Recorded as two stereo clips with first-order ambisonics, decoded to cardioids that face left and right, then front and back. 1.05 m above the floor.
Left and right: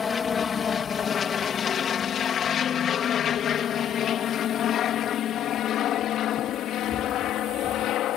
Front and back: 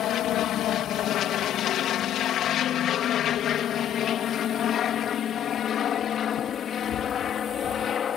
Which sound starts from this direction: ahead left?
An aircraft, at 0.0 s.